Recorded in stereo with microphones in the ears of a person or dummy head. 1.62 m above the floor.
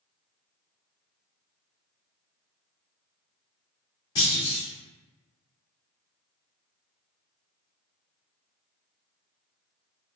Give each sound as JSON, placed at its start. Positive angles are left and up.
{"t": 4.2, "sound": "a clunk", "side_deg": 25, "distance_m": 1.4}